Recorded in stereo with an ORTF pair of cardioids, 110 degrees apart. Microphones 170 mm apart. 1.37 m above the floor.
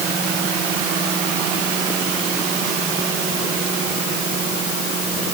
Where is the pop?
No pop in this recording.